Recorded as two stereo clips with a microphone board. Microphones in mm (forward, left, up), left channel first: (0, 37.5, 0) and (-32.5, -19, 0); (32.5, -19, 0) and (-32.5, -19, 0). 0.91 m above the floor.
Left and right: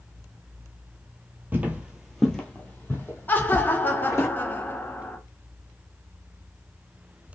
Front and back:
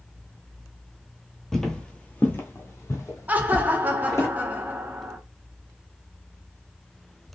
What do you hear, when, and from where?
1.5 s footsteps: 85° right, 1.0 m; by 4.3 s 25° left, 2 m
3.3 s laughter: 115° left, 0.7 m